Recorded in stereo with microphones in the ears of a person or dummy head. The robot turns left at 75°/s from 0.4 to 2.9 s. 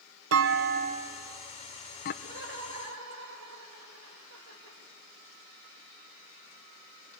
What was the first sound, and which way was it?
A clunk, 70° right (ahead or behind).